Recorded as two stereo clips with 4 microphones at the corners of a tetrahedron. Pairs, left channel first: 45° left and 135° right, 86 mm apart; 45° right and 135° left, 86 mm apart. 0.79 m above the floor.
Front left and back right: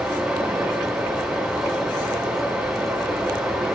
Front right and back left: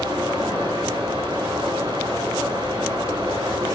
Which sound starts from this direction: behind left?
Running water, at 0.0 s.